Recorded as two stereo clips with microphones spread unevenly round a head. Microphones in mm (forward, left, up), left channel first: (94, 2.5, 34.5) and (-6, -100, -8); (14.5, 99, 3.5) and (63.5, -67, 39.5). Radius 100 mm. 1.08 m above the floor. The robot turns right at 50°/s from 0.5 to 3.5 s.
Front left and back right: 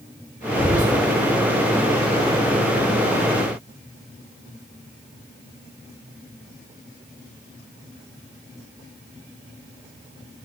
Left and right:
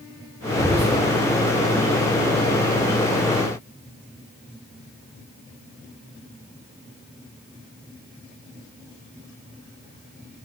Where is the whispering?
115° right, 2.5 m; by 1.0 s 95° right, 2.5 m.